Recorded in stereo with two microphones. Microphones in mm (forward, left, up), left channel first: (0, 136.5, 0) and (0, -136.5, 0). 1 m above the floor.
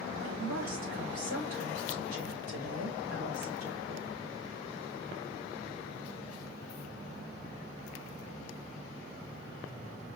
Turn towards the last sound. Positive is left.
turn(degrees=-50)  # may be behind; listen again after turning